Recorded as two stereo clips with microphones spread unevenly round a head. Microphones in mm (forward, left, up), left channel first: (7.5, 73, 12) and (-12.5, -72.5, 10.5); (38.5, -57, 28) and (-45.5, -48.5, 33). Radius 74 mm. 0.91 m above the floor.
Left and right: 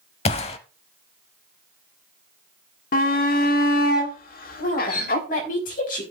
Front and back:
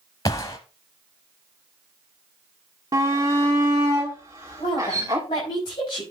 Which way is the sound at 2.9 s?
110° left.